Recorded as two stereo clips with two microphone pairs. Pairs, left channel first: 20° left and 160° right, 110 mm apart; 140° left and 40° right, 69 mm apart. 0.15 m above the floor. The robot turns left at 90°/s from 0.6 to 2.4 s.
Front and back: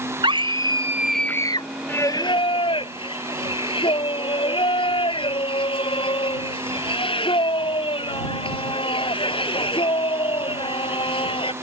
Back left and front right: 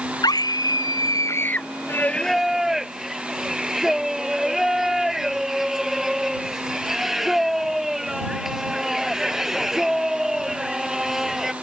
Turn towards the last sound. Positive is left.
turn(degrees=45)